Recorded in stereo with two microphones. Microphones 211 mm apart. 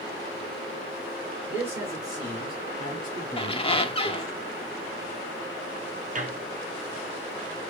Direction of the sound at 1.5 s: 10° right (ahead or behind).